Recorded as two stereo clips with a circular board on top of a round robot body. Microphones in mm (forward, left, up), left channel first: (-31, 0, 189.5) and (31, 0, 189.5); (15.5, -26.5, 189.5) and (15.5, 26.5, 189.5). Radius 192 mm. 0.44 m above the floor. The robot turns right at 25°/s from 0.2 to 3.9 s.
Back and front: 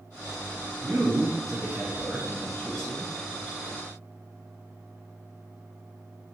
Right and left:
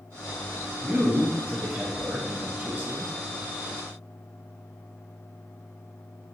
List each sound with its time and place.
0.8 s a man speaking: 50° left, 0.8 m; by 3.1 s 105° left, 0.8 m